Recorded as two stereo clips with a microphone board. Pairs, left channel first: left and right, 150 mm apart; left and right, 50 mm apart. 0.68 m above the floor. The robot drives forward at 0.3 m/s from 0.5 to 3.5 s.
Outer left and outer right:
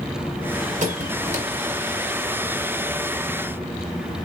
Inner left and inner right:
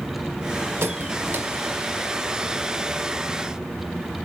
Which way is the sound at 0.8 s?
55° right (ahead or behind).